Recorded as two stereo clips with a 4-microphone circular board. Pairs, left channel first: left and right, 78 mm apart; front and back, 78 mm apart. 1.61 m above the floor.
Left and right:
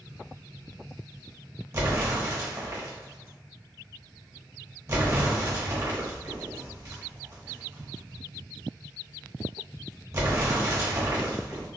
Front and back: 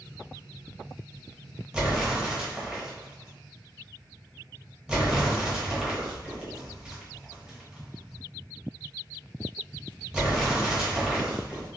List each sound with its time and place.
1.7 s an explosion: 110° right, 0.9 m